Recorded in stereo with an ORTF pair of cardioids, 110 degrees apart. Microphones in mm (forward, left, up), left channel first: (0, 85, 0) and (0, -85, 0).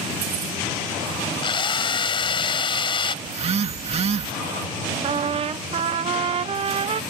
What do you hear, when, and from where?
1.4 s a drill: 30° left
3.2 s a phone buzzing: 35° right
5.0 s a trumpet: 35° right